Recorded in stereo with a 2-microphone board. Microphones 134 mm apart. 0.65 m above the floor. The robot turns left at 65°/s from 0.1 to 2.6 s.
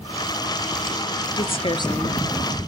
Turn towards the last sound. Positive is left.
turn(degrees=-10)